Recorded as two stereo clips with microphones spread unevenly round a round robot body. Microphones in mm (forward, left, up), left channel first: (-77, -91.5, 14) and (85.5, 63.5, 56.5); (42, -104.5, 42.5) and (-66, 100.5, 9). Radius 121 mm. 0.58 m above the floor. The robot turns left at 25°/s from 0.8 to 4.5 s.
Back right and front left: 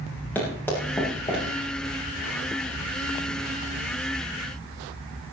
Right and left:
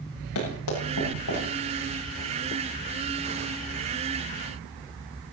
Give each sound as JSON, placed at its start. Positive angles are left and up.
{"t": 0.3, "sound": "running footsteps", "azimuth_deg": -55, "distance_m": 9.5}